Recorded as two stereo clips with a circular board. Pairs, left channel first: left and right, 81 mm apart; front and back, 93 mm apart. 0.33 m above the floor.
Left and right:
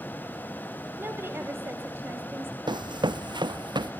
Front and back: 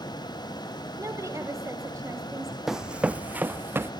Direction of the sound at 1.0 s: 135° right.